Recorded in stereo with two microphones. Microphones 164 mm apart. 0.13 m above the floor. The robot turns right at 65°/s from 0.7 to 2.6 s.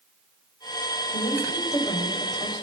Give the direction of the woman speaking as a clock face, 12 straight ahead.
8 o'clock.